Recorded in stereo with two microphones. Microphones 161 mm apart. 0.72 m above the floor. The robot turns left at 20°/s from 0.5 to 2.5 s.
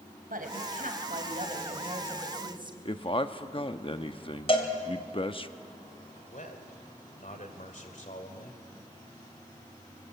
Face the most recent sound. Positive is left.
turn(degrees=60)  # may be behind; listen again after turning